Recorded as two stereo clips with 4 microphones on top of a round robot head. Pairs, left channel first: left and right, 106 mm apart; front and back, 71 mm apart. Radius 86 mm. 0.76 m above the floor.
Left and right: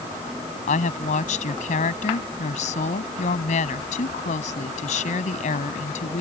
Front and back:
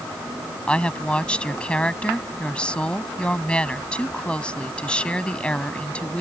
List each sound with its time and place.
0.7 s a woman speaking: 75° left